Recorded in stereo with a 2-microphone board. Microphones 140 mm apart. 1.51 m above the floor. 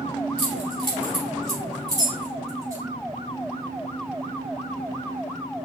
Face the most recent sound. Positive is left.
turn(degrees=-25)  # may be behind; listen again after turning